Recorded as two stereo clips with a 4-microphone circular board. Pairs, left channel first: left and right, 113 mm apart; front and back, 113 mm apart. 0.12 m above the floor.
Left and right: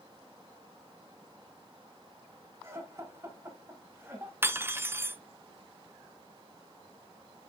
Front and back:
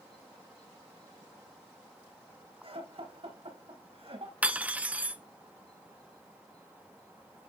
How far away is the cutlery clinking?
About 0.7 m.